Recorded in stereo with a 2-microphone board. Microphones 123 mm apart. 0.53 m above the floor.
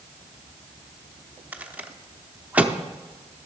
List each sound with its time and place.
1.5 s a rattle: 10° right (ahead or behind), 0.6 m